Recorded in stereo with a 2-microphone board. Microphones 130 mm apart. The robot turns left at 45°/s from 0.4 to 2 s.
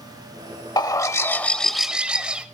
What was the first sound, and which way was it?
A bird, 45° left.